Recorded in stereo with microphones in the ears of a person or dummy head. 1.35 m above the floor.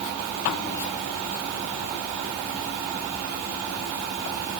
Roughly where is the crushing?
No crushing in this recording.